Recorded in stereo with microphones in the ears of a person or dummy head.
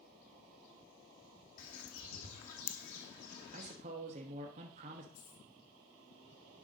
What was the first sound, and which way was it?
A bird, 50° left (ahead or behind).